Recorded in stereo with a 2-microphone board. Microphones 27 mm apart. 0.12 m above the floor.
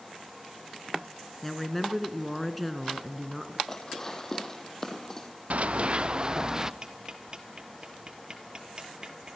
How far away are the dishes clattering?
About 3.5 m.